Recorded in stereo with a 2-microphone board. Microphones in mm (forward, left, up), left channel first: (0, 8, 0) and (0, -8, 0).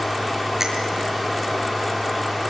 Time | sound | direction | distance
0.6 | a finger snap | 30° right (ahead or behind) | 6.5 m